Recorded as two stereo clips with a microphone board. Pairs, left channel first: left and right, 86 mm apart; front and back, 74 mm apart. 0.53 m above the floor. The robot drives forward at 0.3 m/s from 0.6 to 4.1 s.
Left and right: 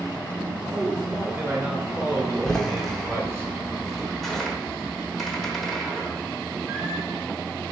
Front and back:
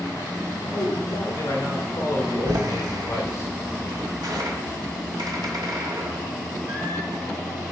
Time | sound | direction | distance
0.7 | a man speaking | 25° right | 2.5 m
2.5 | a door slam | 175° left | 0.8 m